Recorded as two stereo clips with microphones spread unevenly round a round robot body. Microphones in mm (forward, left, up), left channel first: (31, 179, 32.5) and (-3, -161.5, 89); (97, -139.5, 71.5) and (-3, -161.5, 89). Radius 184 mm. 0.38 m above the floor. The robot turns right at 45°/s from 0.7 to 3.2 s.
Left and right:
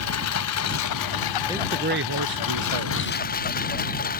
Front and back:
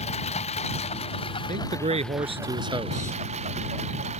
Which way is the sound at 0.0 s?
40° left.